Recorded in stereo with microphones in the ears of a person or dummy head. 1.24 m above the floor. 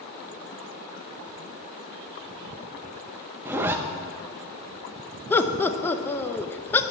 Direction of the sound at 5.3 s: 15° left (ahead or behind).